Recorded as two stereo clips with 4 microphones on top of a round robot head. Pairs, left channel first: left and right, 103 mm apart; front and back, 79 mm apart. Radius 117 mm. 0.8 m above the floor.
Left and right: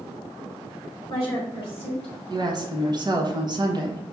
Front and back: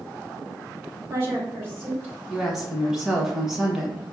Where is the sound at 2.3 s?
95° right, 1.1 m.